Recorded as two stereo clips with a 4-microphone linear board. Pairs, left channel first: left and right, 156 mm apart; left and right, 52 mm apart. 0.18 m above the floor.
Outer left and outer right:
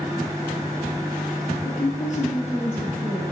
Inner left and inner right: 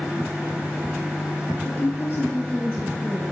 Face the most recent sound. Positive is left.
turn(degrees=0)  # may be behind; listen again after turning